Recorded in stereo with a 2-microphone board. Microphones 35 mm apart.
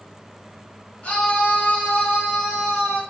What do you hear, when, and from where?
1.0 s a scream: 40° left (ahead or behind), 0.9 m; by 3.0 s 70° left (ahead or behind), 1.8 m